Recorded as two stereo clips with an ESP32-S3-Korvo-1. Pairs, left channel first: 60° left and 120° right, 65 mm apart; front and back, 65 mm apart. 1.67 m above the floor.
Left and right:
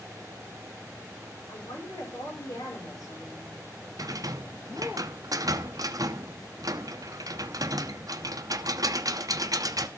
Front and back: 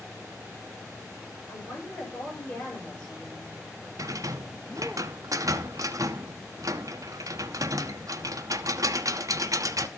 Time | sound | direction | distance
1.5 | a woman speaking | 65° left | 10 m
4.0 | a rattle | 145° right | 0.6 m